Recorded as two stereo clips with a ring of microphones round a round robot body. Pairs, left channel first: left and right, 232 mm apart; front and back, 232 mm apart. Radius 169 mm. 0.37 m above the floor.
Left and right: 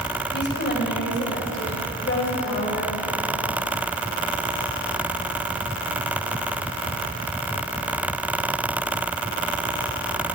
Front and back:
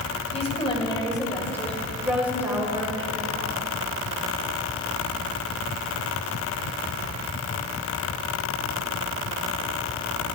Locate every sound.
0.3 s a woman speaking: 60° left, 2.5 m; by 3.5 s 125° left, 2 m